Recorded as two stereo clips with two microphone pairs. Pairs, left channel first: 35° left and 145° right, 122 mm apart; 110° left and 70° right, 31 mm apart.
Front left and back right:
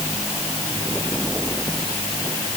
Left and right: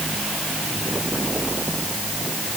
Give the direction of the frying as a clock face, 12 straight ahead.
I don't hear frying.